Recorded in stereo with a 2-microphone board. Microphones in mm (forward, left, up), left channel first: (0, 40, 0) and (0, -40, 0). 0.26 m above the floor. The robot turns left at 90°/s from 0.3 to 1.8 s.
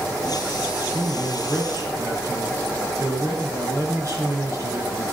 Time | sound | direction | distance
0.9 | a man speaking | 40° left | 3.5 m